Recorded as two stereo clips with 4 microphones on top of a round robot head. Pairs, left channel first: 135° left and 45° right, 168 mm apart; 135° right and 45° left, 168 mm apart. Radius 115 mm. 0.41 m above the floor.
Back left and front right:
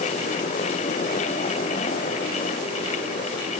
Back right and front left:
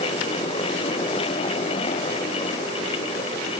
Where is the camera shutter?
I don't hear a camera shutter.